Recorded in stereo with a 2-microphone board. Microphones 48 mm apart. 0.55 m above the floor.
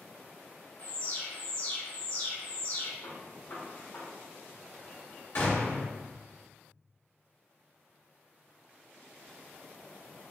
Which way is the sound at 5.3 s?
55° left (ahead or behind).